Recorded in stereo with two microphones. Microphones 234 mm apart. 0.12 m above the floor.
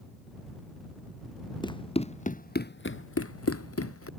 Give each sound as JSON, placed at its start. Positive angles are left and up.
{"t": 1.6, "sound": "running footsteps", "side_deg": 20}